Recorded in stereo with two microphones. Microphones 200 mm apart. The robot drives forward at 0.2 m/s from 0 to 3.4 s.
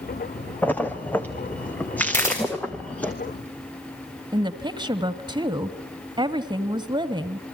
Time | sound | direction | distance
0.6 | a splash | 10° left (ahead or behind) | 1.8 m
2.1 | a camera shutter | 15° left (ahead or behind) | 9.5 m
4.3 | a woman speaking | 20° right (ahead or behind) | 1.2 m